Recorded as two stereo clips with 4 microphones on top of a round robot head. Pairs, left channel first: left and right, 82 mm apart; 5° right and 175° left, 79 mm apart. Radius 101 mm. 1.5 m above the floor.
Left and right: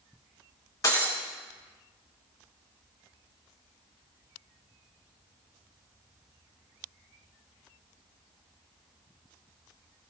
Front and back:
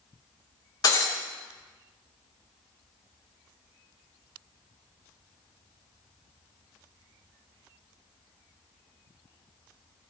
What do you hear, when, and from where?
0.8 s breaking glass: 35° left, 5 m